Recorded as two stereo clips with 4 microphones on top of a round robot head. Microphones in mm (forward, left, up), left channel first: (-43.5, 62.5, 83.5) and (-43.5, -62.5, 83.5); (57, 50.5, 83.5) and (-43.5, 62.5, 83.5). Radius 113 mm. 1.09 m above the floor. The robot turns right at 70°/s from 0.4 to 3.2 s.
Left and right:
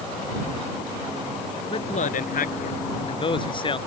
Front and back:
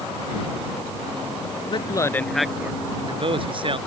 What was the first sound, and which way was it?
A man speaking, 30° left.